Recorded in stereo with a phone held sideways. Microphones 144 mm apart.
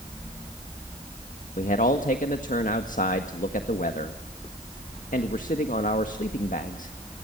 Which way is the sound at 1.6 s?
65° left (ahead or behind).